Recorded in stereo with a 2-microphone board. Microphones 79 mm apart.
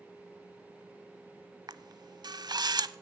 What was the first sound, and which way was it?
A camera shutter, 60° right (ahead or behind).